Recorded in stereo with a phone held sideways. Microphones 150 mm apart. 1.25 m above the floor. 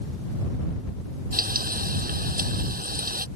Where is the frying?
75° right (ahead or behind).